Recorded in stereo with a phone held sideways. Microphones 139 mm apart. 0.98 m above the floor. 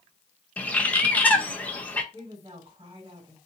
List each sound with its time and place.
0.6 s a bird: 10° left (ahead or behind), 0.7 m
2.1 s a woman speaking: 40° right (ahead or behind), 2 m